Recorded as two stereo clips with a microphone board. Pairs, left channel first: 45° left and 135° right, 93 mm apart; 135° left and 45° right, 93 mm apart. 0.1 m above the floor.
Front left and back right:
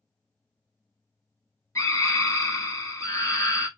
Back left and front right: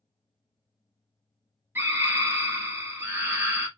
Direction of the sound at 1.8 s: 10° left.